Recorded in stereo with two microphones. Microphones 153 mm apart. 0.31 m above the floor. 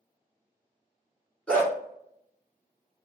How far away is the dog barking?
About 1.7 m.